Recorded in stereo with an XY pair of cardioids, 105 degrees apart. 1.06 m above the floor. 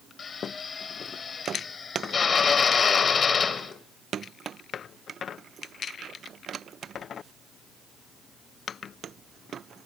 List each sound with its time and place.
0.2 s a drill: 40° left, 3 m